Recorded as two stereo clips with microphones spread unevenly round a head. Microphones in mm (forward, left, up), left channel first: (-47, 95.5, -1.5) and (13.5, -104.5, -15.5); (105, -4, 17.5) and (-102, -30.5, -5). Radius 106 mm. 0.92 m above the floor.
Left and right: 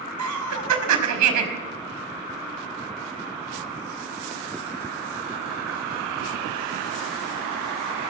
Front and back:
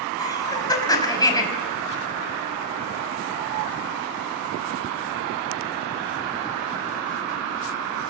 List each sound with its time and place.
0.2 s laughter: 65° right, 5 m